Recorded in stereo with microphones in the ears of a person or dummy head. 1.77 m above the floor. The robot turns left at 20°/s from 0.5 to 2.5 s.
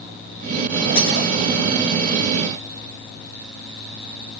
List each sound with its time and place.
0.9 s breaking glass: 70° left (ahead or behind), 9 m